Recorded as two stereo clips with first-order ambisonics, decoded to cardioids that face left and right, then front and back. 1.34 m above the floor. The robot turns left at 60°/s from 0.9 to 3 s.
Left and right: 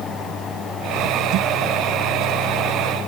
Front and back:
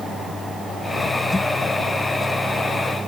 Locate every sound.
Only background noise.